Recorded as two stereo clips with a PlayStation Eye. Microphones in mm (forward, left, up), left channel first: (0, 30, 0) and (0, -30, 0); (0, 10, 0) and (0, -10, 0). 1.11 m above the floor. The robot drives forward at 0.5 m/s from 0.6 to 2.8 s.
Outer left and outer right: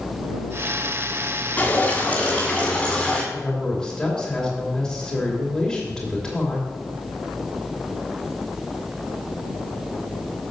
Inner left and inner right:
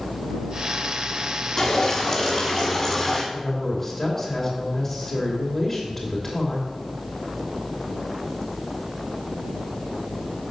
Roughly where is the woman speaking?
Centre.